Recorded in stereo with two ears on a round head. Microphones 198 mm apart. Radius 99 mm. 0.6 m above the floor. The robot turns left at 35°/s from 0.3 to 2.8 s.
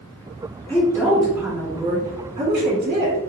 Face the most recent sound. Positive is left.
turn(degrees=-60)